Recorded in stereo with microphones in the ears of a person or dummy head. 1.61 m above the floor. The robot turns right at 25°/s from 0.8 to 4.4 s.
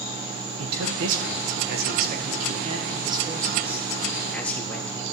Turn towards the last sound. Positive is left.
turn(degrees=10)